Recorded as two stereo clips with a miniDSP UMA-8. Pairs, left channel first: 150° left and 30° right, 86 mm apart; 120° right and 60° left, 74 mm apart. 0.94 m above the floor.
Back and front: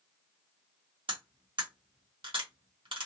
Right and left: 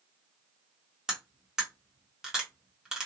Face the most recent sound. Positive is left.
turn(degrees=-25)